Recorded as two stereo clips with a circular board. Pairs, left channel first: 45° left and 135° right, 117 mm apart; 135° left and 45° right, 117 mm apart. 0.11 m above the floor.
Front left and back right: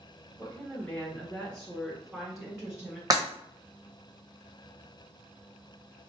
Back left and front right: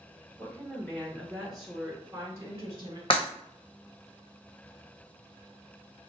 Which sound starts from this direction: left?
A woman speaking, at 0.4 s.